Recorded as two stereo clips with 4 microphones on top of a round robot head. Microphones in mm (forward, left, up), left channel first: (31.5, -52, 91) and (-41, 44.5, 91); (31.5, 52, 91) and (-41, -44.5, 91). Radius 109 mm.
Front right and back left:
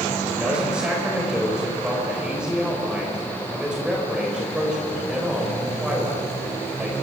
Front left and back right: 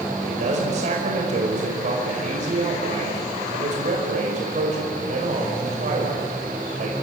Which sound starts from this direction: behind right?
A man speaking, at 0.2 s.